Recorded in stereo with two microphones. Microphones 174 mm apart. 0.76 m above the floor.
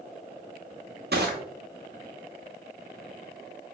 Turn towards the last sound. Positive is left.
turn(degrees=-70)  # may be behind; listen again after turning